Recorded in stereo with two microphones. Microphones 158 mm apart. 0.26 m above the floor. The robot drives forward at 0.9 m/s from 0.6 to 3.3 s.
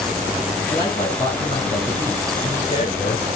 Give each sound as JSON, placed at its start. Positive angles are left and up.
{"t": 0.7, "sound": "a man speaking", "side_deg": 30, "distance_m": 4.0}